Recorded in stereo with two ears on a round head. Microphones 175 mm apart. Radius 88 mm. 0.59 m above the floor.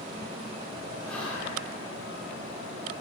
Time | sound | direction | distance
1.1 | whispering | 5° left (ahead or behind) | 2.0 m